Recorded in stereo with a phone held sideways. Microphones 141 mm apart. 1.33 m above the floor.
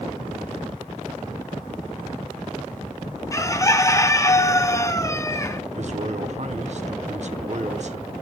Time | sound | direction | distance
3.3 | a bird | 20° left (ahead or behind) | 0.6 m
5.8 | a man speaking | 55° right (ahead or behind) | 0.9 m